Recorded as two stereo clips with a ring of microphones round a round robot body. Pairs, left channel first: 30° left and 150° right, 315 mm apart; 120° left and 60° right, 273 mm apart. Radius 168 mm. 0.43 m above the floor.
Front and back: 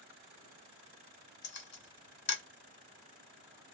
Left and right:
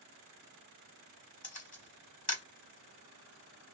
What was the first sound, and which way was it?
A camera shutter, 70° left.